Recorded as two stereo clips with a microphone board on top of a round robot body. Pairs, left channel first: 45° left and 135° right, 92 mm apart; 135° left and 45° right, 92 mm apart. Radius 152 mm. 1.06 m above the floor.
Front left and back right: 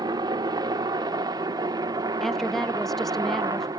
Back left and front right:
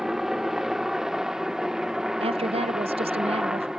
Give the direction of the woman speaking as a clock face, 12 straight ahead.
1 o'clock.